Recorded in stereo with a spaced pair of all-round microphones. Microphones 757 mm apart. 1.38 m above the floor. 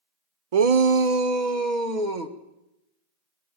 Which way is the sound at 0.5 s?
50° right (ahead or behind).